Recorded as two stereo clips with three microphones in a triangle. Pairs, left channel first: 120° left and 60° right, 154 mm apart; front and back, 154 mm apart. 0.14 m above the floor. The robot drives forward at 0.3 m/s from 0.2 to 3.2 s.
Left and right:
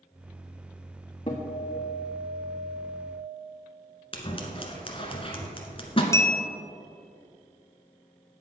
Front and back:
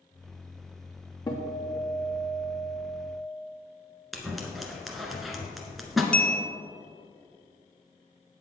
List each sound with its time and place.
1.3 s a guitar: 65° left, 2 m; by 3.1 s 80° left, 2 m
4.1 s scissors: 90° left, 1.2 m
6.1 s a bell: 75° left, 0.8 m